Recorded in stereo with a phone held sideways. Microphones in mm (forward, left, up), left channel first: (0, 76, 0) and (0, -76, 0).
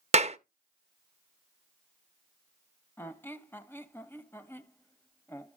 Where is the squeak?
15° left (ahead or behind), 0.8 m.